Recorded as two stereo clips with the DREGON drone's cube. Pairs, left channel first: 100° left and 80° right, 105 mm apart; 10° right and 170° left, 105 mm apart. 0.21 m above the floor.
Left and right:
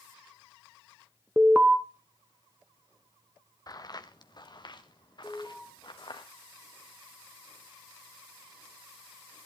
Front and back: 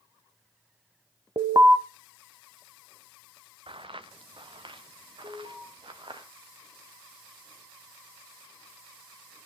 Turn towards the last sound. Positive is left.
turn(degrees=180)